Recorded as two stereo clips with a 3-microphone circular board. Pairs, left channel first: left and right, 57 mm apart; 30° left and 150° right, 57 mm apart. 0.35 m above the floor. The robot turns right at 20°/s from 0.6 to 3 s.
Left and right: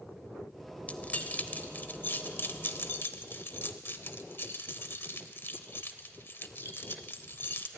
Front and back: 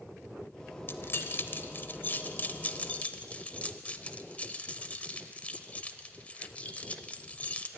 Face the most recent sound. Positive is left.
turn(degrees=80)